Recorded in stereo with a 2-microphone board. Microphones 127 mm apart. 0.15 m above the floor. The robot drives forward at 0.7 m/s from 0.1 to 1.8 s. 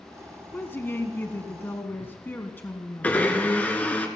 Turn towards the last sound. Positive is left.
turn(degrees=10)  # may be behind; listen again after turning